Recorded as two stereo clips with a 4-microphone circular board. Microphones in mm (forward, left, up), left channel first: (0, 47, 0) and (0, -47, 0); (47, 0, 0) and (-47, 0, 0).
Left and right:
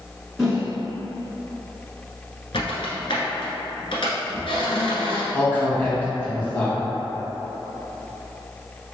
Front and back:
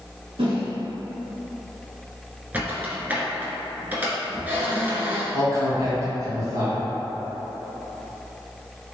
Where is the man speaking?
155° left, 1.8 m.